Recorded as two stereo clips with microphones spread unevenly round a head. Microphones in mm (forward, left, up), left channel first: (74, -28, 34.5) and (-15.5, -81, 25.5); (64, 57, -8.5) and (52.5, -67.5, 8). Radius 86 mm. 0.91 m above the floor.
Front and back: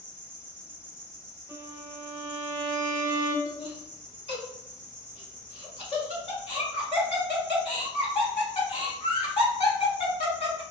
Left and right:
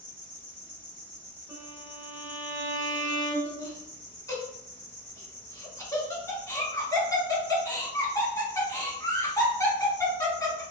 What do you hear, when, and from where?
0.0 s an insect: 170° left, 1.0 m
1.5 s a violin: 90° right, 0.7 m
3.5 s laughter: 35° left, 1.3 m